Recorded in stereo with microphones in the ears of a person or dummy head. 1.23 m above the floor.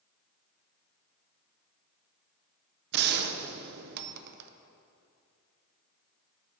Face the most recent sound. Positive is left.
turn(degrees=-55)  # may be behind; listen again after turning